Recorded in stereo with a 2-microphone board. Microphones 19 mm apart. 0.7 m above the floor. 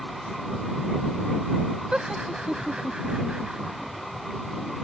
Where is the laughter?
75° right (ahead or behind).